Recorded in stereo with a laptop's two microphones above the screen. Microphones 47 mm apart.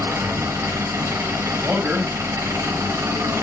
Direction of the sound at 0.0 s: 70° right (ahead or behind).